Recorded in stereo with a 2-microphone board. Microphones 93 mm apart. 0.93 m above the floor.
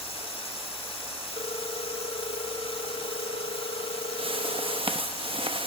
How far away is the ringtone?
About 1.0 m.